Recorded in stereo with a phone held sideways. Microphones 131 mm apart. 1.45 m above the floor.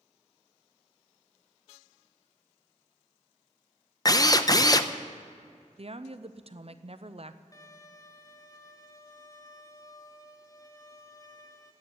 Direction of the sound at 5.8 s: 50° right (ahead or behind).